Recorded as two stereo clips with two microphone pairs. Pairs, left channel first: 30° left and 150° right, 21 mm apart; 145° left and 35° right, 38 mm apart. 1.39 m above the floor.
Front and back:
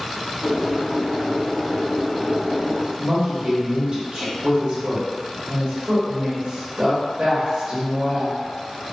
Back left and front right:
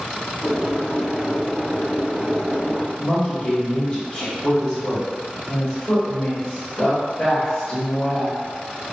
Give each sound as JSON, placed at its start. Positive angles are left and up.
{"t": 0.4, "sound": "boiling", "azimuth_deg": -100, "distance_m": 0.9}
{"t": 3.0, "sound": "a woman speaking", "azimuth_deg": -170, "distance_m": 1.4}